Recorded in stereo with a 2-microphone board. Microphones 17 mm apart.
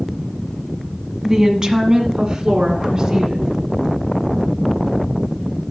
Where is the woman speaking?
30° right (ahead or behind), 1.2 m; by 3.5 s 55° right (ahead or behind), 2.5 m.